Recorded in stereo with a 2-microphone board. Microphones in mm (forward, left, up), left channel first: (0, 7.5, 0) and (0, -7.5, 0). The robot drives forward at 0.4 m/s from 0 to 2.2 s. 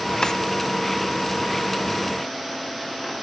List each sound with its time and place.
0.2 s a drawer: 55° left (ahead or behind), 1.4 m